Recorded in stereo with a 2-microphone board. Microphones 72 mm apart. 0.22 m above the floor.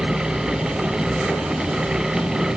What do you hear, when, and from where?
Only background noise.